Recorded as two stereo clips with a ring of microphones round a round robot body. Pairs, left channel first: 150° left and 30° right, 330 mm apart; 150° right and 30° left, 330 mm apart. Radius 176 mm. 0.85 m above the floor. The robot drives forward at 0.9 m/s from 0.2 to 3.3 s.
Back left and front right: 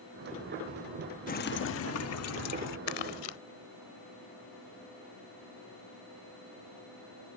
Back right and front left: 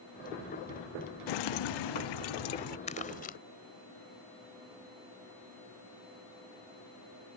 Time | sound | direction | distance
1.3 | dripping | 140° right | ?
2.9 | crumpling | 140° left | ?